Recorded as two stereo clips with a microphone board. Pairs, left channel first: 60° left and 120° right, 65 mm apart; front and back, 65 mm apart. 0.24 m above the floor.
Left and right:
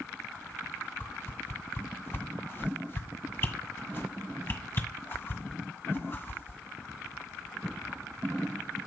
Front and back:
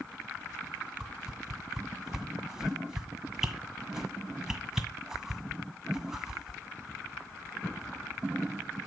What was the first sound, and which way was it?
A whoosh, 100° left.